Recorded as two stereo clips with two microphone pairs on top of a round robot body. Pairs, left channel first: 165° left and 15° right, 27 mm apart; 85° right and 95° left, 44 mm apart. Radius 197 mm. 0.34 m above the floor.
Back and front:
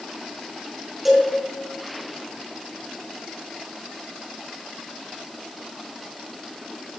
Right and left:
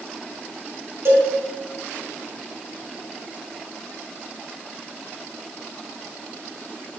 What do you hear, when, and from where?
1.1 s a cowbell: 75° left, 3.5 m